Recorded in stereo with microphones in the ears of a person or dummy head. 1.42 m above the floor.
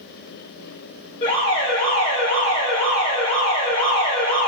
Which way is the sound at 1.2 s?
25° left (ahead or behind).